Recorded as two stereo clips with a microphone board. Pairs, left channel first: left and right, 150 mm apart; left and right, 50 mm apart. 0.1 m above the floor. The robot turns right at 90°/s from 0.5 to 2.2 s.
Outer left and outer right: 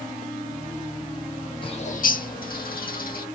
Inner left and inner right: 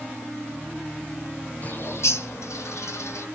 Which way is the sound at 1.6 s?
35° left (ahead or behind).